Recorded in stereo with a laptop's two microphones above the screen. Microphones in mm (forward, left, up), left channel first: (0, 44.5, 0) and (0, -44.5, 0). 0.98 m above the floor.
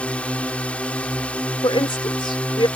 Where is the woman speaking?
70° left (ahead or behind).